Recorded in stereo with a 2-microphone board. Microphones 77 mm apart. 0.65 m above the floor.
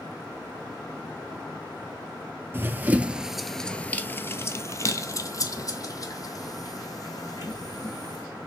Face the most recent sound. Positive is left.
turn(degrees=55)  # may be behind; listen again after turning